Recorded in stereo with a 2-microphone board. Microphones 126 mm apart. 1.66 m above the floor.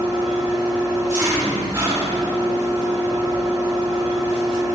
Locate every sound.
0.0 s an engine running: 25° right (ahead or behind), 2 m